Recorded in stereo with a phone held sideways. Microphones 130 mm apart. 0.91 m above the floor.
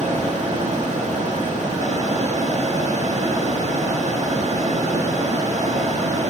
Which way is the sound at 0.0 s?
60° right (ahead or behind).